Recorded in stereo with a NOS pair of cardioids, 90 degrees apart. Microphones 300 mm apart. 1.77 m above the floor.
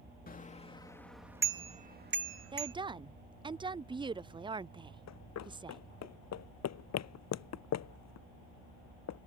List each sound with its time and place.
0.3 s a bicycle bell: 30° left; by 2.8 s 55° right
2.5 s a woman speaking: 15° right
5.1 s running footsteps: 65° left